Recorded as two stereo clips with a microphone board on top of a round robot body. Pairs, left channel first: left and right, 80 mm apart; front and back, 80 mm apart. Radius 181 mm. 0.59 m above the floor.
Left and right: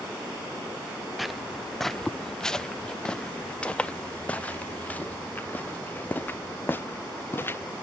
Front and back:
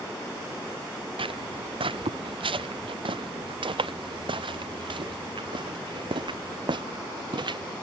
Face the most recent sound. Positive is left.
turn(degrees=155)